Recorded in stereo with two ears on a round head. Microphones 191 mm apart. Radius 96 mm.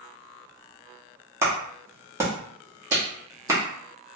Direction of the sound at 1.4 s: 15° right (ahead or behind).